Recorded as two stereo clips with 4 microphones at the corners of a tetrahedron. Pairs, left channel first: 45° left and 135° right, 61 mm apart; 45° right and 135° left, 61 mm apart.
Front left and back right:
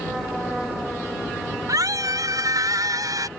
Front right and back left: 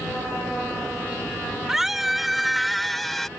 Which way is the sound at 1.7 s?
140° right.